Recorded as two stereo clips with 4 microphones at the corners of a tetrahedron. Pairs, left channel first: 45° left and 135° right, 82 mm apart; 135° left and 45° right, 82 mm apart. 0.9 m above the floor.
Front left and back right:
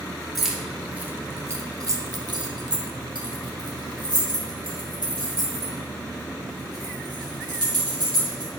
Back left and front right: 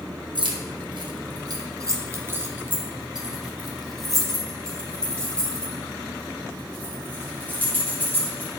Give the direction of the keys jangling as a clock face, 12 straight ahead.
2 o'clock.